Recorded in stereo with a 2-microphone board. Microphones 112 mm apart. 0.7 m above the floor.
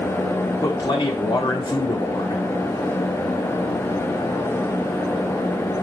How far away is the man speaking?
About 1.6 m.